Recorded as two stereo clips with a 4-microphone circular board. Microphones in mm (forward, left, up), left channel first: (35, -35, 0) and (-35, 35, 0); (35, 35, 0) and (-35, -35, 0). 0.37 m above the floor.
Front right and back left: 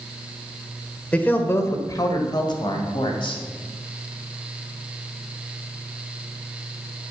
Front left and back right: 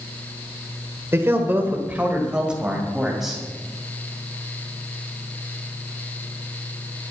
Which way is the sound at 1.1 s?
110° right.